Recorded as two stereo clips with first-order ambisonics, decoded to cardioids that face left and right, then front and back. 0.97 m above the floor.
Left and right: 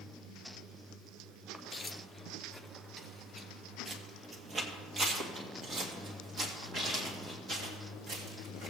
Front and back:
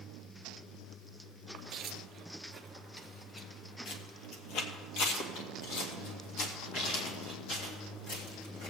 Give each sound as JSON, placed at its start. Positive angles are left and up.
{"t": 1.5, "sound": "footsteps", "azimuth_deg": 160, "distance_m": 1.1}